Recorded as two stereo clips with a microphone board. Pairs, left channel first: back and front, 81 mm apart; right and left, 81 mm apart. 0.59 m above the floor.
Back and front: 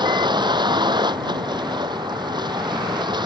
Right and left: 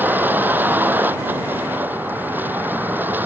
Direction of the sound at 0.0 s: 25° left.